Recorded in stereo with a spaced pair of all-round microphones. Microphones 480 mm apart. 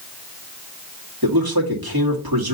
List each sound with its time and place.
1.2 s a man speaking: 50° right (ahead or behind), 1.9 m